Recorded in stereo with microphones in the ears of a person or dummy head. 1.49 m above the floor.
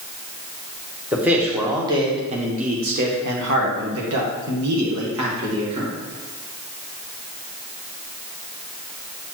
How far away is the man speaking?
About 1.4 m.